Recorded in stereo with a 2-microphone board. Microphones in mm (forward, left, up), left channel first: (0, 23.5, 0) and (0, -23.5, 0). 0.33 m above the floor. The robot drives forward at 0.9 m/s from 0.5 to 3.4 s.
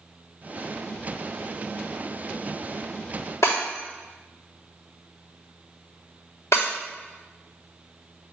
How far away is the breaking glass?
About 3 m.